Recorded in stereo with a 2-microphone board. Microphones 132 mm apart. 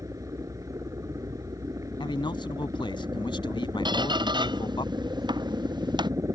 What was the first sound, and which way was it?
A helicopter, 25° right (ahead or behind).